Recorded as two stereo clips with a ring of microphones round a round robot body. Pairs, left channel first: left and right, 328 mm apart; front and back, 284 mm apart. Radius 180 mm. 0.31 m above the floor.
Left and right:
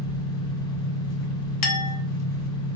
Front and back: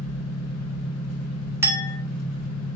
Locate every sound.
0.0 s an engine running: 55° left, 2 m
1.6 s a clink: 100° left, 1.0 m